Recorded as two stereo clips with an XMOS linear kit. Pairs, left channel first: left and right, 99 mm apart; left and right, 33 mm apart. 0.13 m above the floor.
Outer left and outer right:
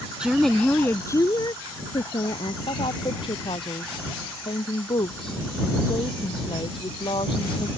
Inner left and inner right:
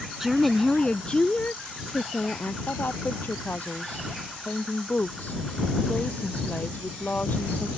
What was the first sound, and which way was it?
A woman speaking, 10° right (ahead or behind).